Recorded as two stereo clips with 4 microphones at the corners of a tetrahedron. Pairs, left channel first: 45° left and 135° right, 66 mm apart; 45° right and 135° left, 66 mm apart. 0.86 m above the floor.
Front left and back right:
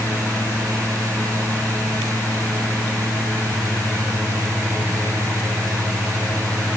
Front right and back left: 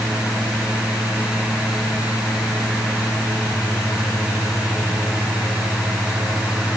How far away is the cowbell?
I don't hear a cowbell.